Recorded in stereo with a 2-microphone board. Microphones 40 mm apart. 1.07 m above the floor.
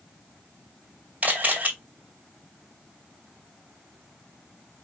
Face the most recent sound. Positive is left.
turn(degrees=-35)  # may be behind; listen again after turning